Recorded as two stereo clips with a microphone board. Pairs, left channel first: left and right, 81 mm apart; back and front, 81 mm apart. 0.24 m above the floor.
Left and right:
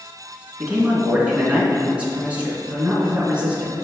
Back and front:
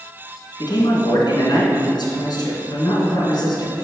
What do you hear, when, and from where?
0.6 s a man speaking: 160° right, 2.5 m